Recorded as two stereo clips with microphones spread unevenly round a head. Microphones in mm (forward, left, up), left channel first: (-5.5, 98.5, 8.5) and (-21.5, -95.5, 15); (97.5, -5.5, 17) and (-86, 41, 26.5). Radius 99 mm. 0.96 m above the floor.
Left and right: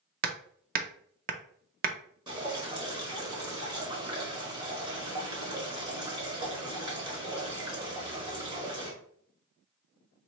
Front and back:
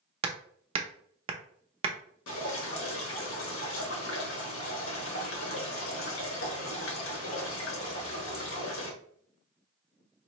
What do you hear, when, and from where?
0.2 s hammering: 135° right, 0.5 m
2.3 s dripping: 30° right, 1.1 m